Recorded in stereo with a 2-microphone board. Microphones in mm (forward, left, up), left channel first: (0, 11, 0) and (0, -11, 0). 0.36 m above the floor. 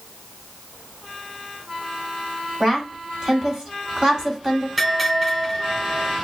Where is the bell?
10° right (ahead or behind), 3.5 m.